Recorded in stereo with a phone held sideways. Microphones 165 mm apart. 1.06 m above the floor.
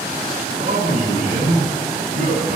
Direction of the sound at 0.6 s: 50° right (ahead or behind).